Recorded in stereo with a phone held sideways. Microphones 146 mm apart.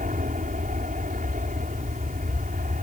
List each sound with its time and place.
0.0 s an aircraft: 55° right (ahead or behind)